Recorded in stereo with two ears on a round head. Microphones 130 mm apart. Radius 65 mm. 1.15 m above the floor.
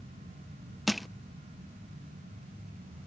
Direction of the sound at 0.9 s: Centre (ahead or behind).